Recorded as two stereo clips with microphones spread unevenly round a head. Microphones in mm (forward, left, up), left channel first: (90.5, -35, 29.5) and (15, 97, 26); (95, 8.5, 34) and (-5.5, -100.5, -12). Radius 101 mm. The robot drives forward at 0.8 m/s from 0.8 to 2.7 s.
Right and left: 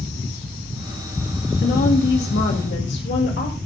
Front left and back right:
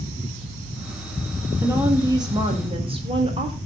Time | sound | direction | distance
1.6 | a woman speaking | 60° right | 2.5 m